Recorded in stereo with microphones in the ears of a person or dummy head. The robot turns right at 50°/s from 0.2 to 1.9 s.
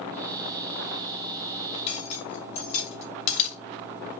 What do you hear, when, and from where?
1.7 s cutlery clinking: 35° left (ahead or behind), 3.5 m; by 3.6 s 45° left (ahead or behind), 3.5 m